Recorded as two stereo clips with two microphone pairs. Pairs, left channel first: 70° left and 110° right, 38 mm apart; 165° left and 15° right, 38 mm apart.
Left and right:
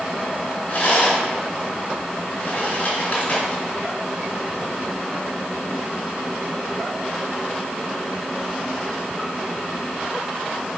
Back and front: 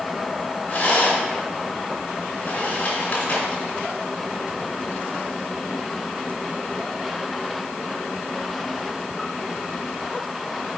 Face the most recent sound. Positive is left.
turn(degrees=125)